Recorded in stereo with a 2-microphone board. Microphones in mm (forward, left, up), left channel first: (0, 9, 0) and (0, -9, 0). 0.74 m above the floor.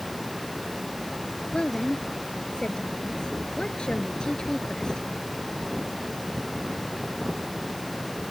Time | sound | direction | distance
1.5 | a woman speaking | 85° left | ?